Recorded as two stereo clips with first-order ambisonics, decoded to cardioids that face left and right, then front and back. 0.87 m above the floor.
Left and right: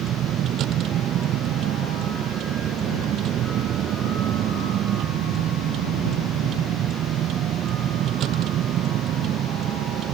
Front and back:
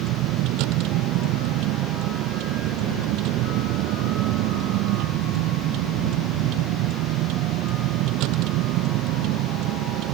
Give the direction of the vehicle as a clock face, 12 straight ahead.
5 o'clock.